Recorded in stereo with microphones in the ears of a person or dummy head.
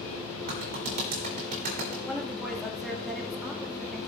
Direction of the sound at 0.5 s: 55° right (ahead or behind).